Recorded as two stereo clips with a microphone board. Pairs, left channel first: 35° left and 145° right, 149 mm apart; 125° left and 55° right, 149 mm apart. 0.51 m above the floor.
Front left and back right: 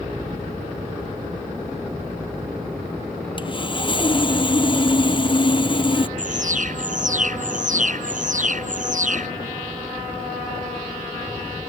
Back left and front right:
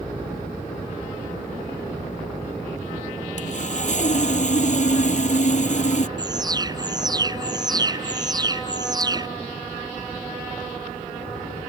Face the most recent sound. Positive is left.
turn(degrees=-120)